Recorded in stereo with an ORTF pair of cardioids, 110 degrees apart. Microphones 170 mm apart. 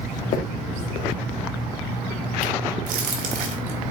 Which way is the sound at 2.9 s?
60° right.